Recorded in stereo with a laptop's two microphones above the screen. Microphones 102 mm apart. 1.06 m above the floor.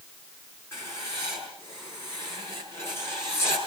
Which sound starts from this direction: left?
Writing, at 0.7 s.